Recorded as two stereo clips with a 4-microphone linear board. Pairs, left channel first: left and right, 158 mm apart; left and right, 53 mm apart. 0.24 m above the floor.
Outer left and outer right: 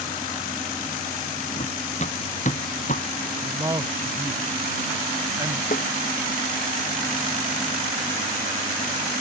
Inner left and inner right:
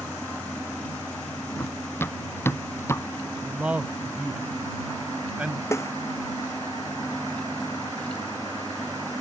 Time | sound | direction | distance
1.6 | running footsteps | 45° left (ahead or behind) | ?
3.4 | a man speaking | 25° right (ahead or behind) | ?
5.7 | a snare drum | 60° left (ahead or behind) | ?